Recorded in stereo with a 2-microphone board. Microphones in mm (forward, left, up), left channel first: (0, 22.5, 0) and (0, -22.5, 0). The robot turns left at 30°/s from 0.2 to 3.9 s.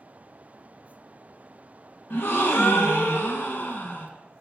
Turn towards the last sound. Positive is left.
turn(degrees=55)